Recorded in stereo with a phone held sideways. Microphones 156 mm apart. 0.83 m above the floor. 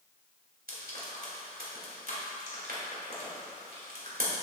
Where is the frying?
70° right (ahead or behind), 2 m.